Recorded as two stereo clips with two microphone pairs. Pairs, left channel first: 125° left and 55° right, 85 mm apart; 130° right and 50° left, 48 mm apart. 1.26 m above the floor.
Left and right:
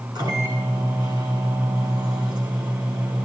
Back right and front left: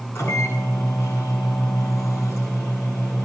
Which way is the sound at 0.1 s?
95° right.